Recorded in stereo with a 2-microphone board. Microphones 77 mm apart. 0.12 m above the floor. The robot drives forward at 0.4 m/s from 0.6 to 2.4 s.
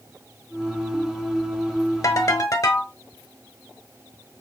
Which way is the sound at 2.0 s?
50° left (ahead or behind).